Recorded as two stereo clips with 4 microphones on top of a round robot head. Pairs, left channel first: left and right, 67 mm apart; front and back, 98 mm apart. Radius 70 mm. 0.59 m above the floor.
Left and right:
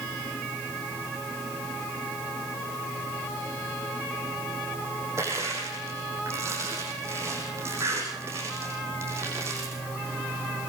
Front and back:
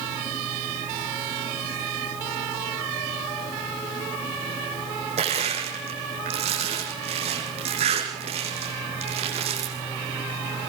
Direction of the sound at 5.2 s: 150° right.